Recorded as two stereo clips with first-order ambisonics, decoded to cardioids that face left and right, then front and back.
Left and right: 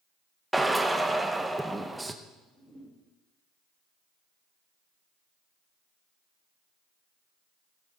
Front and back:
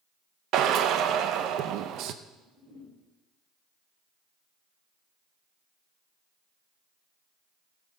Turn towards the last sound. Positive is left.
turn(degrees=165)